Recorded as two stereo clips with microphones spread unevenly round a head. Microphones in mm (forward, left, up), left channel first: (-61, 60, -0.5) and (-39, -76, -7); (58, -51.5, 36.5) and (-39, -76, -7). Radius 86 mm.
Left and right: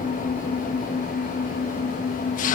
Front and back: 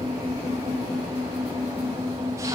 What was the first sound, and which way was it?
An engine running, 125° left.